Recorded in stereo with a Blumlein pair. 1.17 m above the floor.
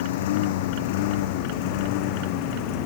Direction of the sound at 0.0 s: 55° left.